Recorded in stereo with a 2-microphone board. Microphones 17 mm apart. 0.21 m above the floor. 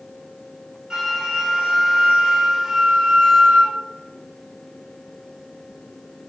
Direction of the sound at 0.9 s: 40° right (ahead or behind).